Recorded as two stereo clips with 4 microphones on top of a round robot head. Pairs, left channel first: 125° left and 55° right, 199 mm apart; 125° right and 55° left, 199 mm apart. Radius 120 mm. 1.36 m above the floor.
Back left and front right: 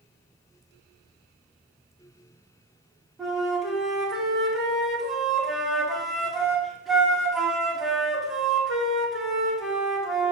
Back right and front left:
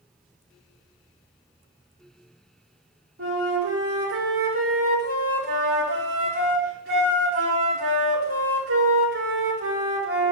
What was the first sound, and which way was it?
A flute, 35° left.